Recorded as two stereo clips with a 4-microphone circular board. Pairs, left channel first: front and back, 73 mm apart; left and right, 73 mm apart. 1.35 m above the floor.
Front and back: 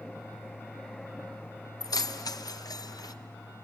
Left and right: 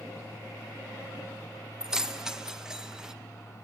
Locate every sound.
1.8 s keys jangling: 10° right, 0.7 m